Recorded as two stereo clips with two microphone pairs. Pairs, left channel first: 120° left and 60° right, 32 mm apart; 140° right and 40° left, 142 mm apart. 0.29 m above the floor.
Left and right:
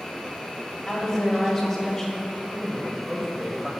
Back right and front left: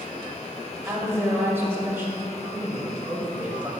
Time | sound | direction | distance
0.9 | a woman speaking | 75° left | 1.0 m
2.4 | a man speaking | 20° right | 1.0 m